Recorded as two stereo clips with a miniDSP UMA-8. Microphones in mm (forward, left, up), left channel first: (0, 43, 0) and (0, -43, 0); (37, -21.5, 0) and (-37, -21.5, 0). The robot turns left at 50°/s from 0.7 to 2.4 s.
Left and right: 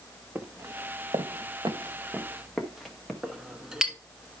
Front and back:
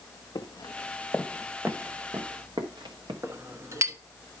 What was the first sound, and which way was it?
Footsteps, 20° right.